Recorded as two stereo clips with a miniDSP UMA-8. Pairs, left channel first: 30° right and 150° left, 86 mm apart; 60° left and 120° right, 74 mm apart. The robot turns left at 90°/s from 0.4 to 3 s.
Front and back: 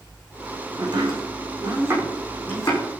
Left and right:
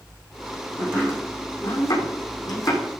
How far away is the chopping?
About 6.5 m.